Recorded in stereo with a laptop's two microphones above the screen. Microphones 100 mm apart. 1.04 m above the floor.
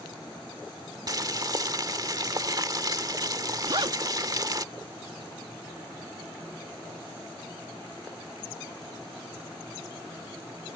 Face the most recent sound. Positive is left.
turn(degrees=-60)  # may be behind; listen again after turning